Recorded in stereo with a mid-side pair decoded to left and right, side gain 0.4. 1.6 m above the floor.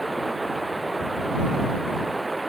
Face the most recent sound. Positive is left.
turn(degrees=-15)